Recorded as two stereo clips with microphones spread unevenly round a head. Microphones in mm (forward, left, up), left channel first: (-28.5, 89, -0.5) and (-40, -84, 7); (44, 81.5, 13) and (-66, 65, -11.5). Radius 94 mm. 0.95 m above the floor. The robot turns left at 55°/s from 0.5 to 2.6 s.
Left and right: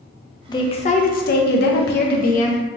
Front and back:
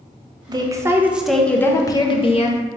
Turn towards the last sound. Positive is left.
turn(degrees=35)